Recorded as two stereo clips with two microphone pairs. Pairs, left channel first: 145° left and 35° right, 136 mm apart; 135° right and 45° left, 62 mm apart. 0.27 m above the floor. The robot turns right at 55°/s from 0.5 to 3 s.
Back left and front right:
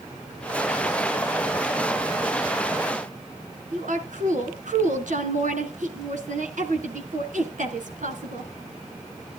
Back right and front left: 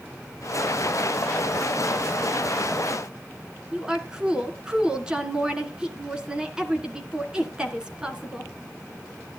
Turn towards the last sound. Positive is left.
turn(degrees=-30)